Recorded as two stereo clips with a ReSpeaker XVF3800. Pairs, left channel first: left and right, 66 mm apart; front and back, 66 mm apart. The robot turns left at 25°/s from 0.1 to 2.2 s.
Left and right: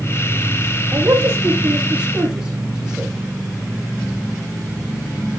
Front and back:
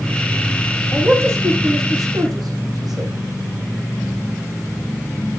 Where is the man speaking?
135° right, 9.5 m; by 3.1 s 170° right, 9.5 m.